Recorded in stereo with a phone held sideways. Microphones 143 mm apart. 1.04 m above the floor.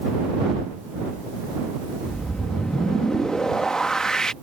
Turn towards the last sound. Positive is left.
turn(degrees=5)  # may be behind; listen again after turning